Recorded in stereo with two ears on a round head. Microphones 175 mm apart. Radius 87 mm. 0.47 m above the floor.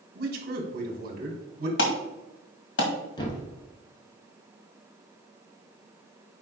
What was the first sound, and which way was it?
A man speaking, 50° right (ahead or behind).